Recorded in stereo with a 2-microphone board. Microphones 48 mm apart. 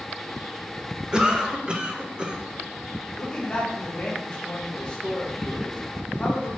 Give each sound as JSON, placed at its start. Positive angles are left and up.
{"t": 1.1, "sound": "a cough", "side_deg": -20, "distance_m": 0.7}
{"t": 3.2, "sound": "a man speaking", "side_deg": 20, "distance_m": 1.3}